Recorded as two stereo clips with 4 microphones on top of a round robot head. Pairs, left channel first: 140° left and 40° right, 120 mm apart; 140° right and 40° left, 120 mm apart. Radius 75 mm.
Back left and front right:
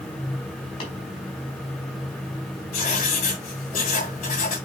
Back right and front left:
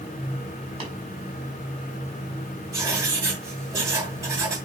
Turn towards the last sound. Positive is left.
turn(degrees=105)